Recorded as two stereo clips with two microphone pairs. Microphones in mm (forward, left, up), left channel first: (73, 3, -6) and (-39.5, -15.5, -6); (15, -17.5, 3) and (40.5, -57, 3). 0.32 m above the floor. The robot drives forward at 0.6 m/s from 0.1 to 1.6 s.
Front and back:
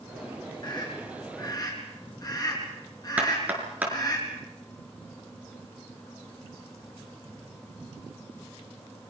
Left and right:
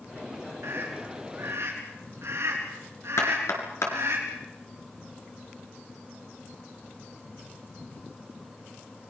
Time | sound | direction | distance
0.6 | a scream | 40° right | 5.5 m
3.2 | knocking | 115° left | 5 m